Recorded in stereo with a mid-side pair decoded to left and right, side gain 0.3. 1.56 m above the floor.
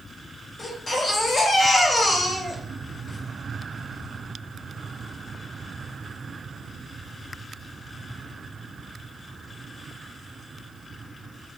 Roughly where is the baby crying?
Ahead left.